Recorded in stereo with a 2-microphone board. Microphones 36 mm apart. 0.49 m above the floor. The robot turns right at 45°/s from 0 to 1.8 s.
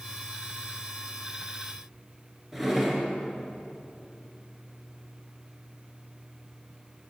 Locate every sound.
2.5 s a drawer: 10° right (ahead or behind), 2.5 m